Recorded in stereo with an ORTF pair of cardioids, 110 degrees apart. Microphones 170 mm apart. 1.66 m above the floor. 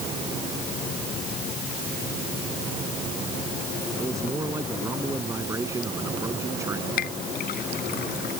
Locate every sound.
4.0 s a man speaking: 20° right
7.0 s a clink: 65° left